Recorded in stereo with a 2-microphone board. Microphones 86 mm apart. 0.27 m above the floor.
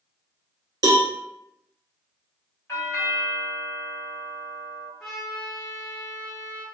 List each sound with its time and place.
0.8 s a cowbell: 50° right (ahead or behind), 0.8 m
2.7 s a doorbell: 30° left (ahead or behind), 1.6 m
5.0 s a trumpet: 10° left (ahead or behind), 1.9 m